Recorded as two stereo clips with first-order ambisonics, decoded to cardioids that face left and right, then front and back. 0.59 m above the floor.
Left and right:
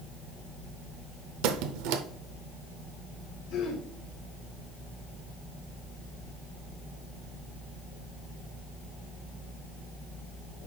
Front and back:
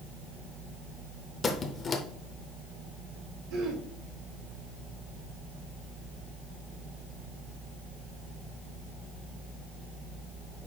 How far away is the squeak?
About 0.6 m.